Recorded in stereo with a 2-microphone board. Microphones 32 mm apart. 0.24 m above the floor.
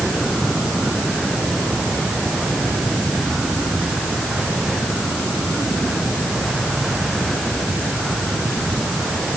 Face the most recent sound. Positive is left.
No sound to turn to.